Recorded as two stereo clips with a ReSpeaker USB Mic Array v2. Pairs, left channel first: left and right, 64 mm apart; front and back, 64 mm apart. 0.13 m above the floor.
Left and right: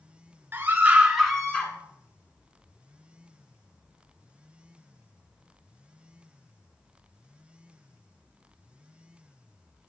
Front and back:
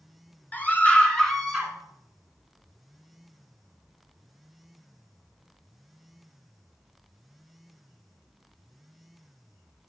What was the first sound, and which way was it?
A scream, 50° right.